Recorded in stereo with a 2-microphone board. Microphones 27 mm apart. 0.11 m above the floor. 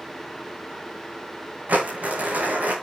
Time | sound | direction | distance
1.7 | crumpling | 75° right (ahead or behind) | 9 m